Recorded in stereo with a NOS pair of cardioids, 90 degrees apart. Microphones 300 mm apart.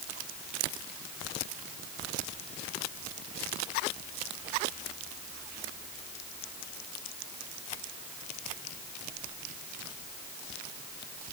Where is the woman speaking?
I don't hear a woman speaking.